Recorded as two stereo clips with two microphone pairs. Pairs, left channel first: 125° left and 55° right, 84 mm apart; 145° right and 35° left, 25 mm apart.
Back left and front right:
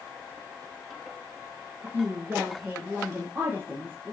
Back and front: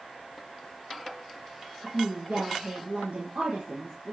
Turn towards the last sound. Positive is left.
turn(degrees=10)